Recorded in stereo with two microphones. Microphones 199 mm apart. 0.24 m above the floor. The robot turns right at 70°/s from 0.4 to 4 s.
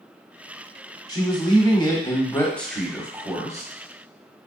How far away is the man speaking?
About 1.0 m.